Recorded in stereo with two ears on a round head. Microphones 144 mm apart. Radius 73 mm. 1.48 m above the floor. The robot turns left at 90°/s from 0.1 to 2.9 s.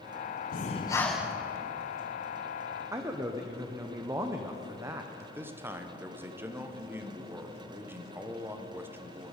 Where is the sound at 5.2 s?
15° right (ahead or behind), 1.0 m.